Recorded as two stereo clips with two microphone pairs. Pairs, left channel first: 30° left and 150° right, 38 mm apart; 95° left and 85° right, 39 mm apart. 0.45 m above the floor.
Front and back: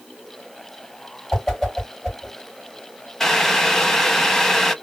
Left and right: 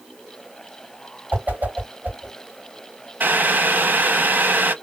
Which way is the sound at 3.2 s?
50° right.